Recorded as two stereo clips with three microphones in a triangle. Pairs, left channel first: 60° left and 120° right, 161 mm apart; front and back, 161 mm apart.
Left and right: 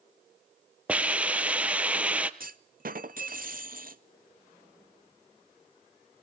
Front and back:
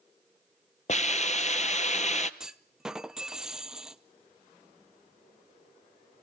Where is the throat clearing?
No throat clearing in this recording.